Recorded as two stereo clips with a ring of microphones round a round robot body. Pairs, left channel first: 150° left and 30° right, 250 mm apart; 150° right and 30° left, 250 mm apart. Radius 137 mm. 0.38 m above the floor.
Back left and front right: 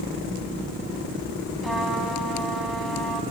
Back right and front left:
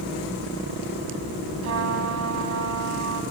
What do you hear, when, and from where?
1.6 s a trumpet: 60° left, 2 m